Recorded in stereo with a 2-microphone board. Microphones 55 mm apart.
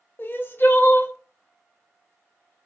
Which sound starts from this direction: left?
Crying, at 0.2 s.